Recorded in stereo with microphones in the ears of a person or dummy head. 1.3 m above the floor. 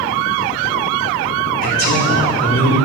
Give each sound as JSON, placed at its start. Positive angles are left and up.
{"t": 1.6, "sound": "a man speaking", "side_deg": 45, "distance_m": 4.5}